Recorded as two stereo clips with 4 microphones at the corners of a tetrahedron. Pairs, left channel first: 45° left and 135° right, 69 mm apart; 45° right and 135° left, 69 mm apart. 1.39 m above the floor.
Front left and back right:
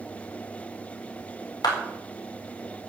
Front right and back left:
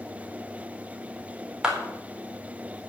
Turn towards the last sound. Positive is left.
turn(degrees=55)